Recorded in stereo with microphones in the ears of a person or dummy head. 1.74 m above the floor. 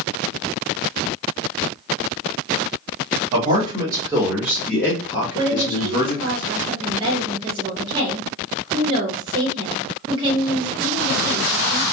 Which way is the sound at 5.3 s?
25° right (ahead or behind).